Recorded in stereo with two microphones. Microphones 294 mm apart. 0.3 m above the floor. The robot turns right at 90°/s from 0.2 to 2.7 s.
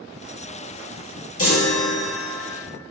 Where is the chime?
50° left, 1.4 m; by 2.5 s 150° left, 1.4 m.